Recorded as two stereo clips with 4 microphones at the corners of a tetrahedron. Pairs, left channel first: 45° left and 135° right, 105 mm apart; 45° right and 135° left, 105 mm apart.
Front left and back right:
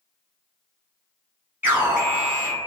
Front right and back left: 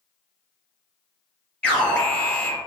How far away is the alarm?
About 1.3 m.